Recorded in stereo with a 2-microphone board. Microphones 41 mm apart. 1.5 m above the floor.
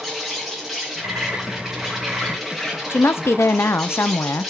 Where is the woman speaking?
85° left, 0.5 m.